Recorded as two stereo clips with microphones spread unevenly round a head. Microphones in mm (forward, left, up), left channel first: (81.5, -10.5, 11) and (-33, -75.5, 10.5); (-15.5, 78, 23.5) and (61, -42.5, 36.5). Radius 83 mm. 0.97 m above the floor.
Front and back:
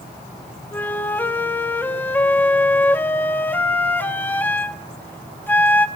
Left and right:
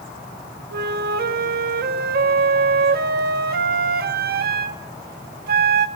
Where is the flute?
45° right, 1.4 m.